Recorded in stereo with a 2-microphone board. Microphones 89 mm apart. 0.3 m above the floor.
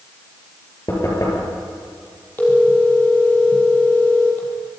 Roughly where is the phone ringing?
Left.